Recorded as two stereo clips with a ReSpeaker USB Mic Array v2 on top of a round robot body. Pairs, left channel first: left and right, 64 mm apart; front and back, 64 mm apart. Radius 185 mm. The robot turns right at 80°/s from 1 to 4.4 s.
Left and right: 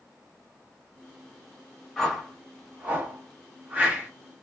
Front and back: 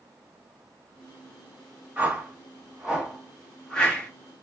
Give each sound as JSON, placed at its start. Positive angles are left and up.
{"t": 2.0, "sound": "a whoosh", "azimuth_deg": 160, "distance_m": 1.5}